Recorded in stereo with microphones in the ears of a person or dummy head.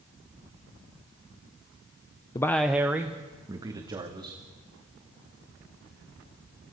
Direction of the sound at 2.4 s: 20° left (ahead or behind).